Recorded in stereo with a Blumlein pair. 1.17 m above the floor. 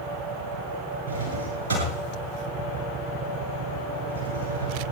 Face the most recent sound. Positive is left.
turn(degrees=-65)